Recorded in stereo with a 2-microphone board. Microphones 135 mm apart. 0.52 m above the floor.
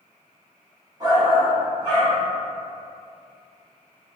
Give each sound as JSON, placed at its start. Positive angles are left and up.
{"t": 1.0, "sound": "a shout", "side_deg": -30, "distance_m": 1.1}